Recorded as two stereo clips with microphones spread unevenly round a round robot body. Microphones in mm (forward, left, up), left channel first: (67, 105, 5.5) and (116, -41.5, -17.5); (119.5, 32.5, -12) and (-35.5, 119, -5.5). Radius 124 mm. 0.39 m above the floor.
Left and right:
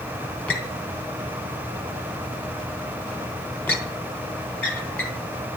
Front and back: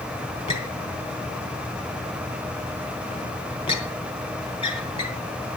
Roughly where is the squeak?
Ahead left.